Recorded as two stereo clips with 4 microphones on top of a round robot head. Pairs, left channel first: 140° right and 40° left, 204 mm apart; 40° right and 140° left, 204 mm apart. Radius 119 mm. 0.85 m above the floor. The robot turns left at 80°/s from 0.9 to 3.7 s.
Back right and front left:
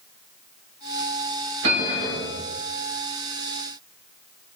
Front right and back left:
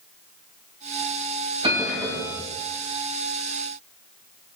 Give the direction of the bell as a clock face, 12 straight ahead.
9 o'clock.